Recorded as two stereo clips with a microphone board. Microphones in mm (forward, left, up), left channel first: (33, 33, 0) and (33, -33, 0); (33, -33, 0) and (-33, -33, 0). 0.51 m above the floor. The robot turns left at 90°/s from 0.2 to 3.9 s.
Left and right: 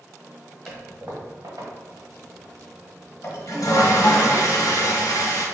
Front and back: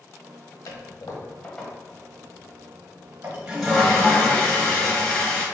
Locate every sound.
0.7 s a toilet flushing: straight ahead, 1.0 m; by 5.5 s 70° left, 1.0 m